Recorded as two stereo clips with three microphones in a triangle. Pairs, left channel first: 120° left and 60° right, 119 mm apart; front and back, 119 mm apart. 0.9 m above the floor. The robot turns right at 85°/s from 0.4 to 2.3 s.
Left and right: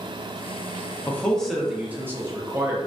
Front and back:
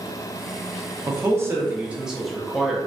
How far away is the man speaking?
About 0.6 m.